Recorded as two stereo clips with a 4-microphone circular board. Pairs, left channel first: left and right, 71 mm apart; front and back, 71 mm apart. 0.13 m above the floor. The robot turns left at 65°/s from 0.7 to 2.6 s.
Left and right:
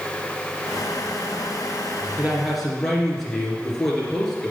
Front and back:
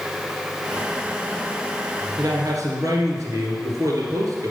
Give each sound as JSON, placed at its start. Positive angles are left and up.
{"t": 2.2, "sound": "a man speaking", "azimuth_deg": -160, "distance_m": 2.5}